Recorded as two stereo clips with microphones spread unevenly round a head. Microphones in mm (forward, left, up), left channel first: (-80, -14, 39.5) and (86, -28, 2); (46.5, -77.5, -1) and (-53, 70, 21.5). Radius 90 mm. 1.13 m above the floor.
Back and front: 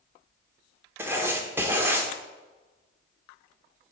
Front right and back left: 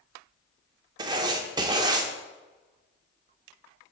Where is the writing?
85° left, 0.8 m.